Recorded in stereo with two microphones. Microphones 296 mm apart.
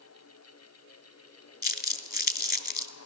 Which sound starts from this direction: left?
Crumpling, at 1.6 s.